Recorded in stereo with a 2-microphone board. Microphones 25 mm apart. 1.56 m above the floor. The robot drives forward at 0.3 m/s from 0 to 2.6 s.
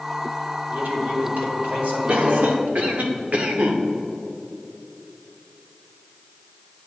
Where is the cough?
55° right (ahead or behind), 0.9 m; by 3.8 s 60° right (ahead or behind), 0.9 m.